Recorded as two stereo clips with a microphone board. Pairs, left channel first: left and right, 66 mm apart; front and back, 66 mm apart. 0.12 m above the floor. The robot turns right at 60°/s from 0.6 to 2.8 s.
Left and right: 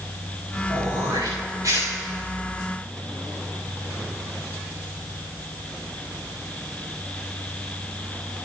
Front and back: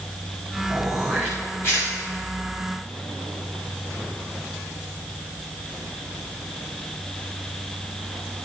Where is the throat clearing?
110° right, 5.5 m; by 1.9 s 40° right, 5.5 m.